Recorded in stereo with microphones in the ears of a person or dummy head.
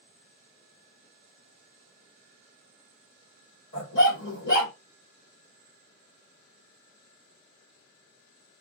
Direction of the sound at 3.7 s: 60° left (ahead or behind).